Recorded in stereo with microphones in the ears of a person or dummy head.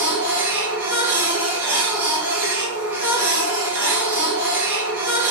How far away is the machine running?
About 1.0 m.